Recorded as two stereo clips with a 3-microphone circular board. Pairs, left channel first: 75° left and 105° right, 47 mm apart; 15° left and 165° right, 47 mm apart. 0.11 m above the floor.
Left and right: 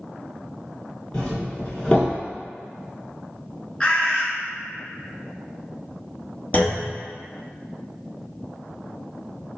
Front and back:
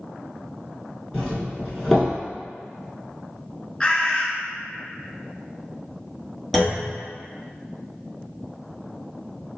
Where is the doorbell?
90° left, 1.5 m.